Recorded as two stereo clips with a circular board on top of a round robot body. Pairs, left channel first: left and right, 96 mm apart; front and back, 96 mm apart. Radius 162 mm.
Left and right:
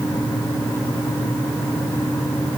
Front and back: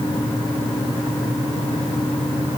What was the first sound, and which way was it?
Only background noise.